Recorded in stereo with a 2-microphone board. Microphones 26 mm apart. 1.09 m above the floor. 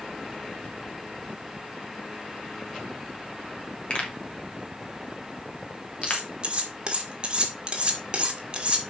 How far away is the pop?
About 2.5 m.